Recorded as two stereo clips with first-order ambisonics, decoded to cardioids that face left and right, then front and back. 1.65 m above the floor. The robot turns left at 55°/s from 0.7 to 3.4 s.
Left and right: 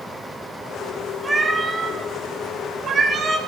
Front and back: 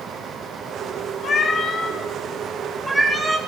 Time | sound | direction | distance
1.2 | a cat meowing | 10° right | 1.4 m